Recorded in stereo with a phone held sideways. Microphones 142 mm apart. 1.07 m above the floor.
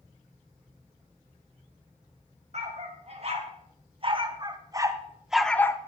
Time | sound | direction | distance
2.5 | a dog barking | 50° right (ahead or behind) | 2.5 m